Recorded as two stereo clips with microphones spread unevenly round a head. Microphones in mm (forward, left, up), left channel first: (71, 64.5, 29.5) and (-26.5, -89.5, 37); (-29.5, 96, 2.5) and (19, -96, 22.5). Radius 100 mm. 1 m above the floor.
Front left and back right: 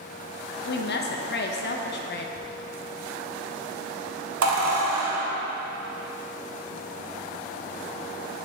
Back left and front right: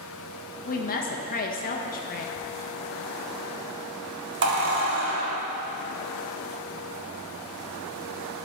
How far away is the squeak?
About 1.7 m.